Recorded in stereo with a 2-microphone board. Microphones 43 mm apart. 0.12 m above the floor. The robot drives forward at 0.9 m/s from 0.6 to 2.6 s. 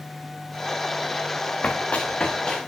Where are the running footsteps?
35° left (ahead or behind), 0.8 m; by 2.6 s 20° left (ahead or behind), 1.6 m.